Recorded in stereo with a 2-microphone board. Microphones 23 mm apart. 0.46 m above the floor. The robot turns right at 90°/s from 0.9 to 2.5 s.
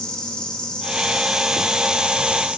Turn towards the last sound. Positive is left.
turn(degrees=-85)